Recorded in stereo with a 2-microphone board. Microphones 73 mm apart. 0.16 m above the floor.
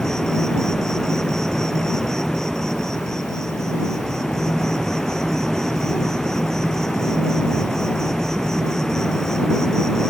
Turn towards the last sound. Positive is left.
turn(degrees=10)  # may be behind; listen again after turning